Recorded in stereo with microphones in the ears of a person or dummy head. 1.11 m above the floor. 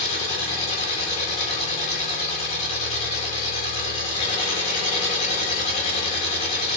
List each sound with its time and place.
0.0 s an engine running: 40° left (ahead or behind), 3.5 m